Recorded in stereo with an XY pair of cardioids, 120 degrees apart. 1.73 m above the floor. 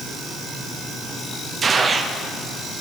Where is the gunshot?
35° right, 0.8 m.